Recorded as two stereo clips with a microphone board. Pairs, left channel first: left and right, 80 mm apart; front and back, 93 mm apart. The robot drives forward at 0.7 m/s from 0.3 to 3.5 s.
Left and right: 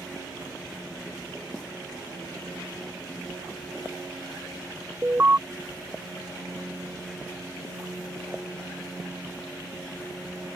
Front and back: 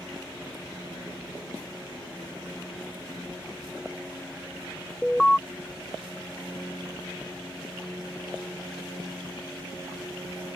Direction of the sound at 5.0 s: 75° right.